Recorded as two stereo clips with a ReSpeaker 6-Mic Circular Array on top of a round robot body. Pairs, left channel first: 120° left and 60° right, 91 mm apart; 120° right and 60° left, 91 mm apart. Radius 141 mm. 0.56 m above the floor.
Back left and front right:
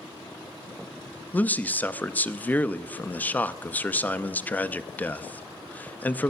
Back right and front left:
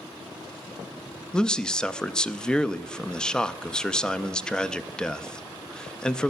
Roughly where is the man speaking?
Behind.